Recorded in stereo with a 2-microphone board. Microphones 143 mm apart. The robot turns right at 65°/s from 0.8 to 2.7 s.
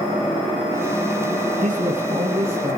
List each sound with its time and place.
1.6 s a man speaking: 105° right, 3.5 m; by 2.8 s 35° right, 3.5 m